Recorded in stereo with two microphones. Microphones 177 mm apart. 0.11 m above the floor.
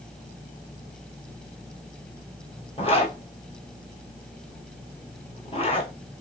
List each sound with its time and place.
2.8 s a zipper: 35° left (ahead or behind), 0.8 m